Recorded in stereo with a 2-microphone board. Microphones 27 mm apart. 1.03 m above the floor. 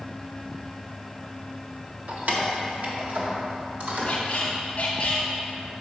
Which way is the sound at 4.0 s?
45° left (ahead or behind).